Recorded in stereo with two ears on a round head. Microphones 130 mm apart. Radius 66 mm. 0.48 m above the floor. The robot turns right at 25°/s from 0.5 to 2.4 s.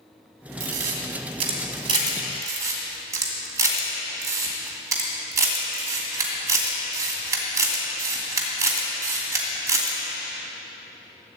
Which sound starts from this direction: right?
A camera shutter, at 0.6 s.